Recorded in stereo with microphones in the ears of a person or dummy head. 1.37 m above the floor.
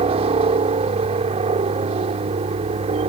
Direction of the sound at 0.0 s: 30° right (ahead or behind).